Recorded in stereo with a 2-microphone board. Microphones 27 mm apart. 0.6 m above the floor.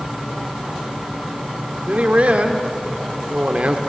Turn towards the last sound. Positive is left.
turn(degrees=-50)  # may be behind; listen again after turning